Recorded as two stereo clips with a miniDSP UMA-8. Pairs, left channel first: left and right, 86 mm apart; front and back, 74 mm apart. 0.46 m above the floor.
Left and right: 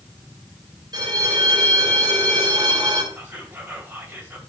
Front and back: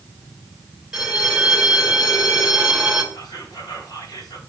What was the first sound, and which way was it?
A bell, 100° right.